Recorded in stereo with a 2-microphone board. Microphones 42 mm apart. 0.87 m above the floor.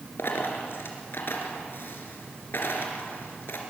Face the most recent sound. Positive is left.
turn(degrees=60)  # may be behind; listen again after turning